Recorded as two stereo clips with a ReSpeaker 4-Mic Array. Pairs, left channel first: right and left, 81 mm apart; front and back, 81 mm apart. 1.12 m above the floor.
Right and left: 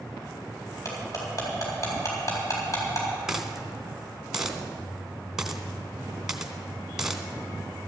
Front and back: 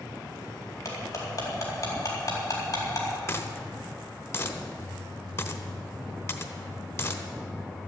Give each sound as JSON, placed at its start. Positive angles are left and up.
{"t": 0.8, "sound": "cutlery clinking", "azimuth_deg": -45, "distance_m": 4.0}
{"t": 3.3, "sound": "a dropped coin", "azimuth_deg": 10, "distance_m": 1.2}